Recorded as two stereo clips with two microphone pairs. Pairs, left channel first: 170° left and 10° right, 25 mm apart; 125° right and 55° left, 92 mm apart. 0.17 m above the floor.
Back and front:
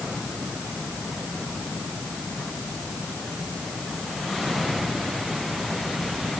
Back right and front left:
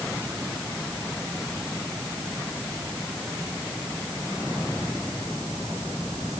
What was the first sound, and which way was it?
Only background noise.